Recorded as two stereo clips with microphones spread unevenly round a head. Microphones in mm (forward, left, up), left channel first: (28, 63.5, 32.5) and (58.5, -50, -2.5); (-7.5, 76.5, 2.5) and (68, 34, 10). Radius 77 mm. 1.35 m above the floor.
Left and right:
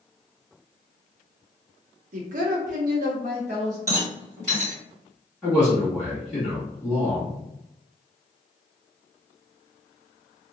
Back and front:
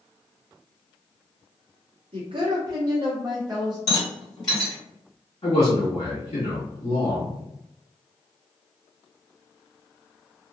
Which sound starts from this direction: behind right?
A rattle, at 3.9 s.